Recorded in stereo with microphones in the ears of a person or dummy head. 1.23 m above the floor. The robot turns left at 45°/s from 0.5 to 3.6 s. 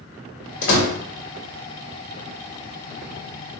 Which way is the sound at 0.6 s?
80° left.